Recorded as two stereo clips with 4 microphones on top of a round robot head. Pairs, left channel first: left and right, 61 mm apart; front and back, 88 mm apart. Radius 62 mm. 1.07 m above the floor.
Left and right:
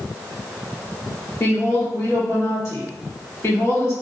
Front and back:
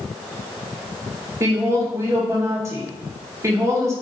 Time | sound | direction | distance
1.4 | a woman speaking | 130° left | 1.6 m